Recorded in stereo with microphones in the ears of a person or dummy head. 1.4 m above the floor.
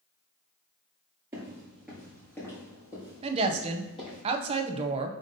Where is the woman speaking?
35° right (ahead or behind), 0.6 m.